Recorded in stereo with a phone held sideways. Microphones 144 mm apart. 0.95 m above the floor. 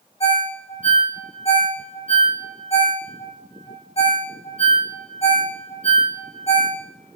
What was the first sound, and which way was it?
A ringtone, 45° left (ahead or behind).